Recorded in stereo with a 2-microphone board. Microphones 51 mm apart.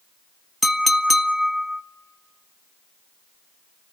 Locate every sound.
0.6 s a clink: centre (ahead or behind), 0.6 m